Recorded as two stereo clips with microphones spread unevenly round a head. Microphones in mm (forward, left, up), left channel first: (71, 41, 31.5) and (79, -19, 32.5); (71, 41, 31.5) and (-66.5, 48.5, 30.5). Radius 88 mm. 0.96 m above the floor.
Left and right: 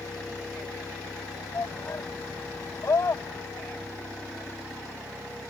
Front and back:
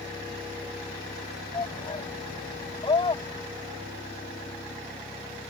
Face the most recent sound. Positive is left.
turn(degrees=55)